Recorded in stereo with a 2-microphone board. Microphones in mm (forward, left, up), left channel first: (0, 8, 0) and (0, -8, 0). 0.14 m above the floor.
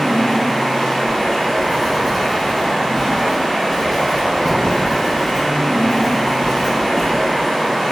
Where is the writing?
10° left (ahead or behind), 1.4 m.